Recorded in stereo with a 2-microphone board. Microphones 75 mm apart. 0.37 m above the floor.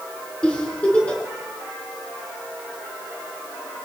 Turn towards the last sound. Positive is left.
turn(degrees=15)  # may be behind; listen again after turning